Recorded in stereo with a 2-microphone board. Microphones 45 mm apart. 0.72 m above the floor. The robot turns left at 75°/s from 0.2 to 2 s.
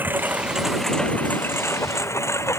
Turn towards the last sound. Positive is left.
turn(degrees=90)